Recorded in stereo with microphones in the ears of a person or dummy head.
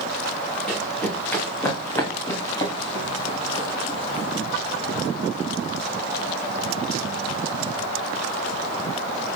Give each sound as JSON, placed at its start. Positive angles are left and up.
{"t": 0.7, "sound": "running footsteps", "side_deg": 10, "distance_m": 7.0}